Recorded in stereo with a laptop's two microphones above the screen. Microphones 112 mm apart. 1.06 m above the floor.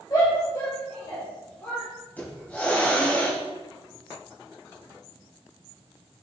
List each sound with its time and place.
0.1 s a shout: 30° left (ahead or behind), 3.5 m; by 1.9 s 20° left (ahead or behind), 3 m
2.2 s a hiss: 15° left (ahead or behind), 3 m